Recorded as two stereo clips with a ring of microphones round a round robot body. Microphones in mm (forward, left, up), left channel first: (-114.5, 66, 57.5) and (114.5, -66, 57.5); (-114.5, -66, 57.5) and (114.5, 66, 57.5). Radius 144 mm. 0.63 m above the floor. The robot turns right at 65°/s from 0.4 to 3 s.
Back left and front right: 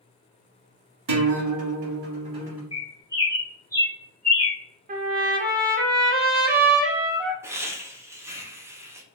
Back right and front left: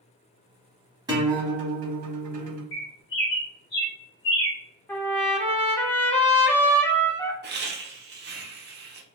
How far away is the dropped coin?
No dropped coin in this recording.